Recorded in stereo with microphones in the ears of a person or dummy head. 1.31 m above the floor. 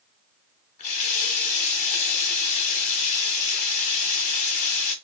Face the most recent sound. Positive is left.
turn(degrees=40)  # may be behind; listen again after turning